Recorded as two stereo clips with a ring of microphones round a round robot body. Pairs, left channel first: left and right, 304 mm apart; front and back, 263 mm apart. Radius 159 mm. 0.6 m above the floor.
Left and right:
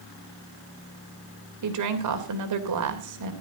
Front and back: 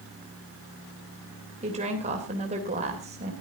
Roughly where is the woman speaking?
Behind right.